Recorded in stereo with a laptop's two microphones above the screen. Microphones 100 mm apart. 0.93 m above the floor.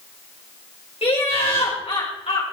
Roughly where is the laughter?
Left.